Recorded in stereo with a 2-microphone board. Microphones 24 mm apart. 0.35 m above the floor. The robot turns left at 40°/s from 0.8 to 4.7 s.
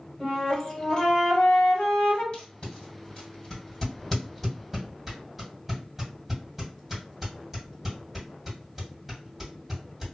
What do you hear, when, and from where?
0.2 s a flute: 150° left, 1.6 m; by 2.2 s 90° left, 1.6 m
2.3 s tape being pulled: 50° left (ahead or behind), 1.9 m; by 10.1 s 10° right (ahead or behind), 1.9 m